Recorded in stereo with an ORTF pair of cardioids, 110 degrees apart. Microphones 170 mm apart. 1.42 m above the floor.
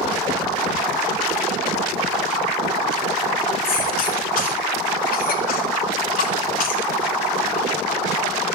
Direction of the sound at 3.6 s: 60° left.